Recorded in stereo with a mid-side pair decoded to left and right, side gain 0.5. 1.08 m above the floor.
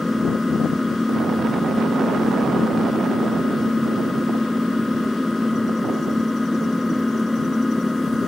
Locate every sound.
0.0 s an engine running: 10° left